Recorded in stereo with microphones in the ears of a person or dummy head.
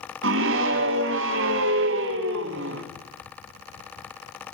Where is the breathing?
I don't hear breathing.